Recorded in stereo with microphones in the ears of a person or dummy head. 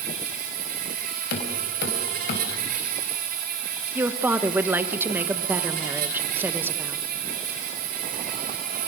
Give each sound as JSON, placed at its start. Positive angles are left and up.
{"t": 0.0, "sound": "an insect", "side_deg": -45, "distance_m": 1.6}
{"t": 1.3, "sound": "knocking", "side_deg": 75, "distance_m": 4.0}
{"t": 4.0, "sound": "a woman speaking", "side_deg": -5, "distance_m": 1.0}